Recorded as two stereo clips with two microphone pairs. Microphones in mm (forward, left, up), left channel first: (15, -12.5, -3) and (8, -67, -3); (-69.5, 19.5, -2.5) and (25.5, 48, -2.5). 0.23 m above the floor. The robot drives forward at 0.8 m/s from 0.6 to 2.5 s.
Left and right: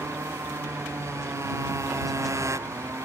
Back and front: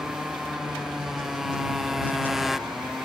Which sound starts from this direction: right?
A motorcycle, at 0.0 s.